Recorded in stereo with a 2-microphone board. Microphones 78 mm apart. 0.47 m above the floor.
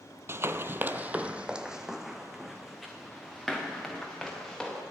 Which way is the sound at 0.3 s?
35° right (ahead or behind).